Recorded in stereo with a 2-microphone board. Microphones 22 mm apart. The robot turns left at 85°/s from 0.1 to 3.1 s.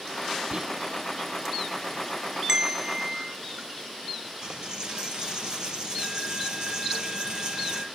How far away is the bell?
About 0.8 m.